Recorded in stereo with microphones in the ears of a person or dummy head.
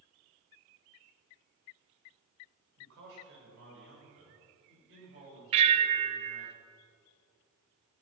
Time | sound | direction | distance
2.8 | a man speaking | 75° right (ahead or behind) | 6.5 m
5.5 | a bell | 35° right (ahead or behind) | 0.7 m